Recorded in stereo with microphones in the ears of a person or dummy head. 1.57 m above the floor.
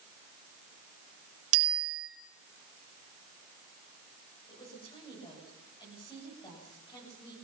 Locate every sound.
1.5 s a bicycle bell: 80° right, 5 m
4.5 s a woman speaking: 25° left (ahead or behind), 8 m